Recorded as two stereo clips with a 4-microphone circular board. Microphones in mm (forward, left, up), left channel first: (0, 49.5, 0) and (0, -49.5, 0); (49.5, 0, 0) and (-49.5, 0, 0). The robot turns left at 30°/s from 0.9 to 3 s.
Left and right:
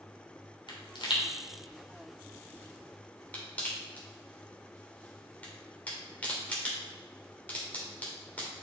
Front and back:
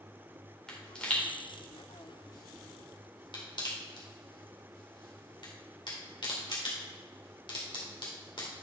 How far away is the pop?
About 2.5 m.